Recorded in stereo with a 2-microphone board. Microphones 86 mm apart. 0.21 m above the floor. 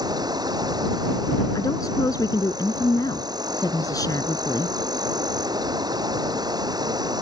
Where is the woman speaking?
45° left (ahead or behind).